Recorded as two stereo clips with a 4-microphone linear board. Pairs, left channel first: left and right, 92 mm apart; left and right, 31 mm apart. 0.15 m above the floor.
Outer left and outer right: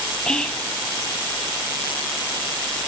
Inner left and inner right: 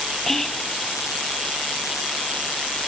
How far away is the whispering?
About 3 m.